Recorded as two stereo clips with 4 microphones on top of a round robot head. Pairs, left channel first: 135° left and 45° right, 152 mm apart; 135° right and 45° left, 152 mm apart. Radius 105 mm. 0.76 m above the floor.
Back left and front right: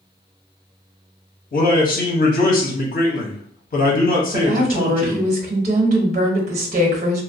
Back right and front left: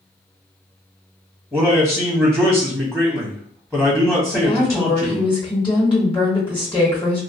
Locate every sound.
1.5 s a man speaking: 135° left, 0.9 m
4.3 s a woman speaking: 80° right, 1.1 m